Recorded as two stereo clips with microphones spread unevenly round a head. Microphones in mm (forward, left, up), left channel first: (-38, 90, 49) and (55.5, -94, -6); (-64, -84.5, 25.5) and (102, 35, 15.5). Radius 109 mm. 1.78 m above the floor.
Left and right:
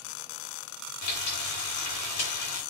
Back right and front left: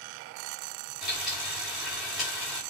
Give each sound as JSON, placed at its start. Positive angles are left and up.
{"t": 1.0, "sound": "frying", "azimuth_deg": 125, "distance_m": 4.5}